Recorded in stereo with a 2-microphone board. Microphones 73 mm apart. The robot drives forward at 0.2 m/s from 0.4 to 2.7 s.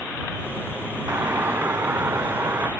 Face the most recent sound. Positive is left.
turn(degrees=-25)  # may be behind; listen again after turning